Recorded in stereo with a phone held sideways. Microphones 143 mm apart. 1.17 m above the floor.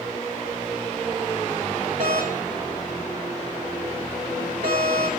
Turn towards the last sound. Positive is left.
turn(degrees=-75)  # may be behind; listen again after turning